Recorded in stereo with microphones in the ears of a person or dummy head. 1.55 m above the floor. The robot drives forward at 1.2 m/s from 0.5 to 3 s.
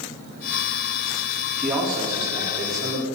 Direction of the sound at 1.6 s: 5° right (ahead or behind).